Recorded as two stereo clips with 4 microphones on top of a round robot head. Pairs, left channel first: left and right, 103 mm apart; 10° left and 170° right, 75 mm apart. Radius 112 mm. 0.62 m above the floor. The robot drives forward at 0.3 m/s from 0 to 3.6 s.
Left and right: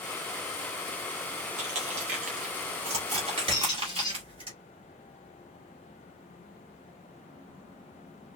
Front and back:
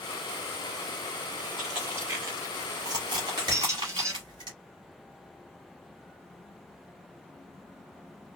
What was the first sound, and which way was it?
Crushing, 90° right.